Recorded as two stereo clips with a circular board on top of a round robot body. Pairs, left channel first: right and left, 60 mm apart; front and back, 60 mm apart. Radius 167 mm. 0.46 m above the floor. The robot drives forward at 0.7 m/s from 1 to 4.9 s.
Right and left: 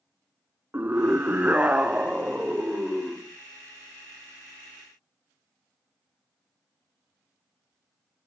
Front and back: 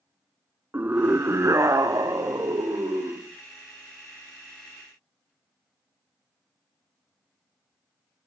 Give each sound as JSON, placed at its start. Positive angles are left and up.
{"t": 0.7, "sound": "a scream", "azimuth_deg": 135, "distance_m": 1.0}